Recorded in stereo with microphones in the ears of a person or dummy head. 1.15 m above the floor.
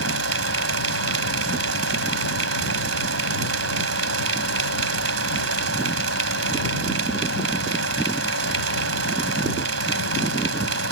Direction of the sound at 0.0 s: 75° right (ahead or behind).